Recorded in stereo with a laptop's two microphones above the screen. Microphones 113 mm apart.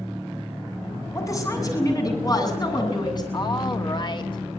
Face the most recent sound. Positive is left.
turn(degrees=45)  # may be behind; listen again after turning